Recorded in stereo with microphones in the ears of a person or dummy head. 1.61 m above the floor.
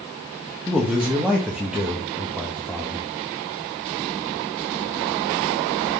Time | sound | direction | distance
0.7 | a man speaking | 5° right (ahead or behind) | 1.0 m